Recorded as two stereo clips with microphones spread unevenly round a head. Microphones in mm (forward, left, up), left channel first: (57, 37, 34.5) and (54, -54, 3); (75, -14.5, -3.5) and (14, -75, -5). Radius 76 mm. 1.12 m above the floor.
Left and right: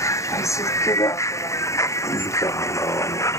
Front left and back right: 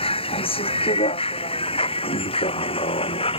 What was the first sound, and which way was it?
A vehicle, 30° left.